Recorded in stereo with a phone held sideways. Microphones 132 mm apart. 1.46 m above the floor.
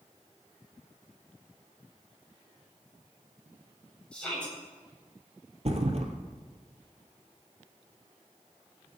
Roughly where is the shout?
Centre.